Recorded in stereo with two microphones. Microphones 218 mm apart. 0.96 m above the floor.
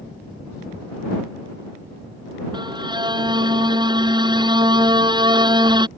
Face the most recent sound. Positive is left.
turn(degrees=-20)  # may be behind; listen again after turning